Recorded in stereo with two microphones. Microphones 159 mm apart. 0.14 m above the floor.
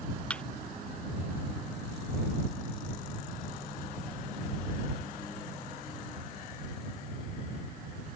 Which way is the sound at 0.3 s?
5° left (ahead or behind).